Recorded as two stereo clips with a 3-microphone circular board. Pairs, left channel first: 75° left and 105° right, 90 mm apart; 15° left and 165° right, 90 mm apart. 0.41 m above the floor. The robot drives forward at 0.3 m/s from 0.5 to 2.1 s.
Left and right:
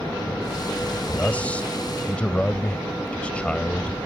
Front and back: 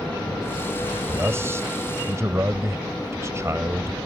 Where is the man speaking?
140° left; by 4.0 s 150° left.